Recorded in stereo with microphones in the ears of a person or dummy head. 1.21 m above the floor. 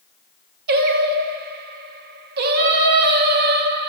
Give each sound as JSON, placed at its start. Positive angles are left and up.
{"t": 0.7, "sound": "singing", "side_deg": -55, "distance_m": 0.6}